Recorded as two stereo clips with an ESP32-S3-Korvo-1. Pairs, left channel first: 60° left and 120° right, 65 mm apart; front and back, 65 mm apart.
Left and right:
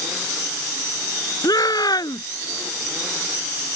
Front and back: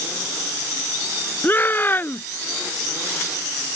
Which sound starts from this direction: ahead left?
A shout, at 1.4 s.